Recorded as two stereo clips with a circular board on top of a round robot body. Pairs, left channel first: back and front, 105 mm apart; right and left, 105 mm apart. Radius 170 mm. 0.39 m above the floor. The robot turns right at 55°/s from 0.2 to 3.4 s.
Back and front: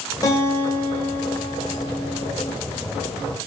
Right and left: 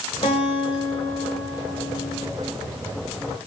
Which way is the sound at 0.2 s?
130° right.